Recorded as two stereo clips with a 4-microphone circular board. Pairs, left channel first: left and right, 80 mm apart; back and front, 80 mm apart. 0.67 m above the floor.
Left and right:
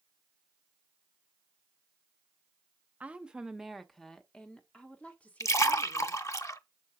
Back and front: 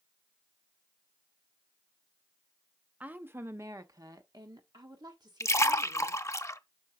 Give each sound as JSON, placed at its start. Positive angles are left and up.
{"t": 3.0, "sound": "a woman speaking", "azimuth_deg": -45, "distance_m": 0.7}
{"t": 5.4, "sound": "a splash", "azimuth_deg": 135, "distance_m": 0.6}